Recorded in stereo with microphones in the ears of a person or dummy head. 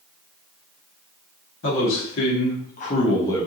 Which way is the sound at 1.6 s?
70° left (ahead or behind).